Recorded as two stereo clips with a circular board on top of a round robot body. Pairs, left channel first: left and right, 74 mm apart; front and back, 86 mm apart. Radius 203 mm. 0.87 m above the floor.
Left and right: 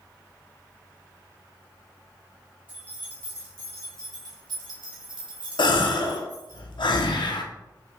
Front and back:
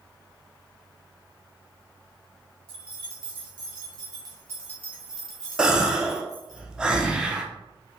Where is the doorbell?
No doorbell in this recording.